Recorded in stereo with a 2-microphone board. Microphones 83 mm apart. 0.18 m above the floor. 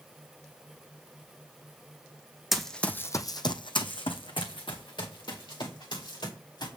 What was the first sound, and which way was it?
Running footsteps, centre (ahead or behind).